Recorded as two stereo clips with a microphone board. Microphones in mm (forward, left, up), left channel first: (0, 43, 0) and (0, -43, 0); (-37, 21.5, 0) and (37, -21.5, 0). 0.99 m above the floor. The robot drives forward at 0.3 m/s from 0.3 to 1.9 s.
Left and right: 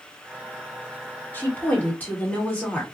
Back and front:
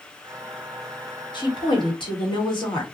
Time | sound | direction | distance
1.3 | a woman speaking | 155° left | 1.1 m